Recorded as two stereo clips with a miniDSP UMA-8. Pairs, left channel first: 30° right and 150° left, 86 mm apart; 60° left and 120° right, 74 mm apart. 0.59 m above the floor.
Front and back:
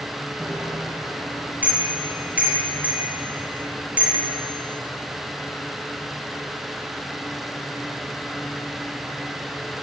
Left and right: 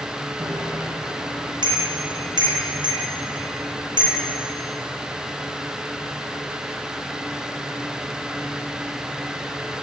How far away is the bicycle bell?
About 8 m.